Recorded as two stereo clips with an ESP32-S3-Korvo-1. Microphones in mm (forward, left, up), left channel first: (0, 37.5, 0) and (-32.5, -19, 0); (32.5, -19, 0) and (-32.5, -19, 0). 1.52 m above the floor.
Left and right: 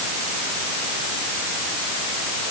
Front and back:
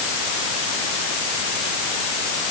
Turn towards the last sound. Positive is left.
No sound to turn to.